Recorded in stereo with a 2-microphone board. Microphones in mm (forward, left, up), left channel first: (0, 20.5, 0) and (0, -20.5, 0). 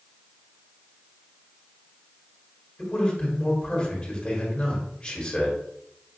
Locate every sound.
2.8 s a man speaking: 20° left (ahead or behind), 1.7 m